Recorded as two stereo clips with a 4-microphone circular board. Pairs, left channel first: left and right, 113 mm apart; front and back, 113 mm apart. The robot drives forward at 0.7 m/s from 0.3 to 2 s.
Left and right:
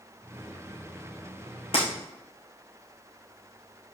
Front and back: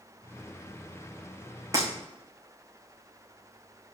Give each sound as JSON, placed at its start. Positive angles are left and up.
{"t": 1.7, "sound": "breaking glass", "azimuth_deg": 120, "distance_m": 3.5}